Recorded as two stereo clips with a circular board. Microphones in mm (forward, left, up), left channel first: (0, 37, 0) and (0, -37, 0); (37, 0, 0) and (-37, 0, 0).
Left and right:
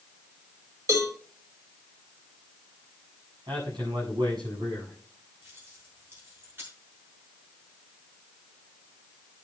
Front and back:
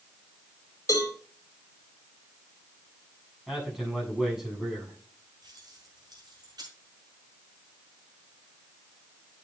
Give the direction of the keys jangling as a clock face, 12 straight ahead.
5 o'clock.